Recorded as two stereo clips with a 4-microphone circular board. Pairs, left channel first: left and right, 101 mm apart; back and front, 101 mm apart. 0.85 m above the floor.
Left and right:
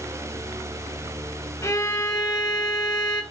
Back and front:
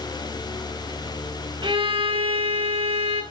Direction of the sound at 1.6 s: 35° left.